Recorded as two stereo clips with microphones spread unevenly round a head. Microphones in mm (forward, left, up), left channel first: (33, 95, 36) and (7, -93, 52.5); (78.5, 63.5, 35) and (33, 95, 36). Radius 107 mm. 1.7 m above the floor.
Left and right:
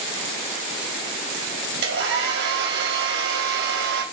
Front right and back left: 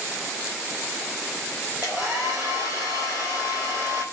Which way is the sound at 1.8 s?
135° right.